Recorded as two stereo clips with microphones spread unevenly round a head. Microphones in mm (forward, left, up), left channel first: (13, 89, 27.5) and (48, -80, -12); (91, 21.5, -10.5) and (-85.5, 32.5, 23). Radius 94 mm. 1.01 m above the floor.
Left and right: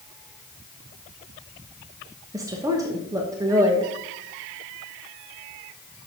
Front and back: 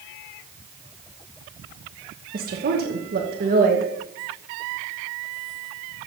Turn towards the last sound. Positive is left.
turn(degrees=-140)